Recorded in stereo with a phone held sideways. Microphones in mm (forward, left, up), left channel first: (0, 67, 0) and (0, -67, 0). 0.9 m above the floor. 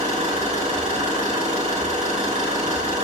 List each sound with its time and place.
0.0 s an engine running: 70° right (ahead or behind), 7 m